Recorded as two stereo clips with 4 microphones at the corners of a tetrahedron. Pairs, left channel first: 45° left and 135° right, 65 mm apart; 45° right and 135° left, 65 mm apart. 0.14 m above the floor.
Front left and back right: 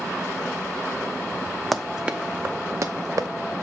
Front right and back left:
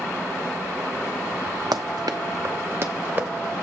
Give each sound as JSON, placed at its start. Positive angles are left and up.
{"t": 1.7, "sound": "running footsteps", "azimuth_deg": 135, "distance_m": 0.6}